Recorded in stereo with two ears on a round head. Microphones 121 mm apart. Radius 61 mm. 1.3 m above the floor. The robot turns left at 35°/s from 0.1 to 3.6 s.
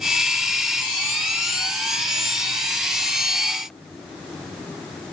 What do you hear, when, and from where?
Only background noise.